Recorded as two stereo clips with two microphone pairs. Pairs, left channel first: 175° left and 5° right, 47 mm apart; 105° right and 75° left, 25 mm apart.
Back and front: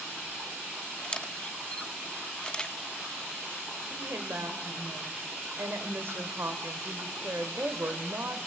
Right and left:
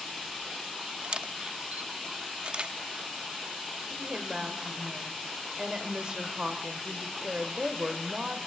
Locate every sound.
1.0 s a camera shutter: 110° left, 0.7 m
3.9 s a woman speaking: 25° left, 2.5 m